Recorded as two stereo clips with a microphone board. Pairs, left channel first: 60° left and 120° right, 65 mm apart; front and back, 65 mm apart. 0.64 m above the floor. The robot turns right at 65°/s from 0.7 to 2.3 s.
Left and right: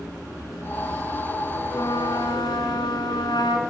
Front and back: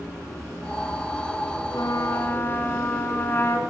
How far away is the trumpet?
About 3.5 m.